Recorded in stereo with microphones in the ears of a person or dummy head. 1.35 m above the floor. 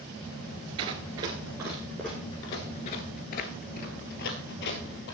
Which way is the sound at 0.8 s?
30° right (ahead or behind).